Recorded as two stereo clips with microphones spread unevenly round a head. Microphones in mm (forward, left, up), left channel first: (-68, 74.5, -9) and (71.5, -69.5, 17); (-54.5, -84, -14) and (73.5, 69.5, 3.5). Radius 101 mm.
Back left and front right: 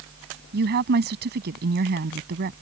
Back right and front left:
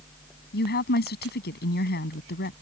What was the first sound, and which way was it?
A woman speaking, 85° right.